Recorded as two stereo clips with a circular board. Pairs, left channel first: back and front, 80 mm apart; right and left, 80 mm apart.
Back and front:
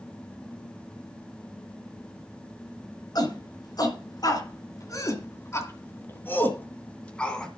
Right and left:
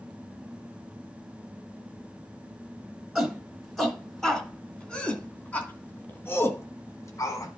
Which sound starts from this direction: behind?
A shout, at 3.1 s.